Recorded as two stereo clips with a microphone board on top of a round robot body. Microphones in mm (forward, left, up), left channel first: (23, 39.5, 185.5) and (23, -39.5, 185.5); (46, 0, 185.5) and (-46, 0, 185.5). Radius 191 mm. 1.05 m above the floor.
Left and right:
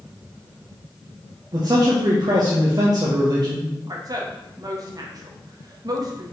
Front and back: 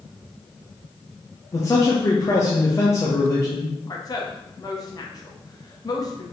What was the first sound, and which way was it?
A man speaking, 55° right.